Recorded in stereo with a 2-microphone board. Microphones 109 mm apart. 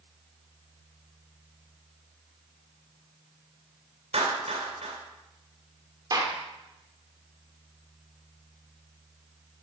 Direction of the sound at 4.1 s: 75° right (ahead or behind).